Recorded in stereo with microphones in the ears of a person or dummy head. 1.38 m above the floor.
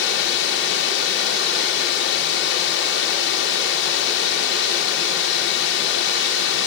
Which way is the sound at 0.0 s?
70° left (ahead or behind).